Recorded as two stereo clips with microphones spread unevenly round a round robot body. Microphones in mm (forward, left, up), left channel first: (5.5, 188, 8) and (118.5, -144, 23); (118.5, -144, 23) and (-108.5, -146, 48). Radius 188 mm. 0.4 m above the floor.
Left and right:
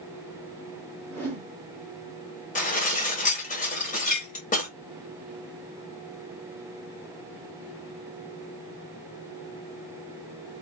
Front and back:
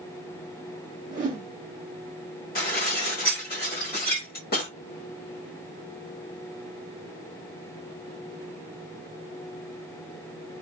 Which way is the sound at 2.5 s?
45° left.